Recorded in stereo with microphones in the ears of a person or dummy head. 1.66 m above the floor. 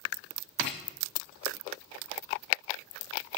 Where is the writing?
35° left (ahead or behind), 0.5 m.